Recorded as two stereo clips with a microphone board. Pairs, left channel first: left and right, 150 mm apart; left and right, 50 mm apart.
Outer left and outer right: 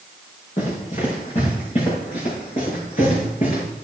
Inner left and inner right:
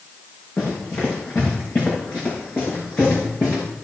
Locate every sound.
0.6 s running footsteps: 45° left (ahead or behind), 6 m; by 3.6 s 50° left (ahead or behind), 8 m